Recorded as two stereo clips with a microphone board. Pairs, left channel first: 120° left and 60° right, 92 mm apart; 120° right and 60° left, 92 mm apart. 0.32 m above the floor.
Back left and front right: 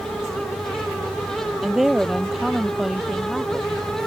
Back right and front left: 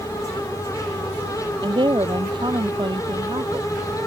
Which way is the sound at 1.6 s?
25° left.